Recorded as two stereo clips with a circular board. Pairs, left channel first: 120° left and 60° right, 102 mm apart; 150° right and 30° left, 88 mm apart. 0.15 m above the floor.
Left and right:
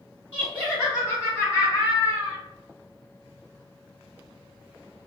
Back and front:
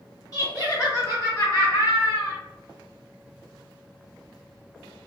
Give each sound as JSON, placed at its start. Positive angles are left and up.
{"t": 0.3, "sound": "laughter", "azimuth_deg": 180, "distance_m": 2.0}